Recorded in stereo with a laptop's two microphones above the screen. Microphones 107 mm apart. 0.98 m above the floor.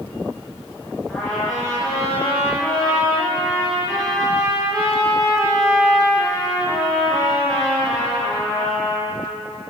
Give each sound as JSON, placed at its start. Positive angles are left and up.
{"t": 1.1, "sound": "a trumpet", "side_deg": 0, "distance_m": 5.5}